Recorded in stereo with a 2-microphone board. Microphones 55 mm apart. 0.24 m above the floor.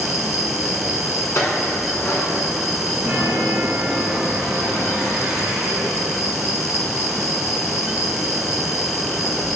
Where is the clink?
65° left (ahead or behind), 1.4 m.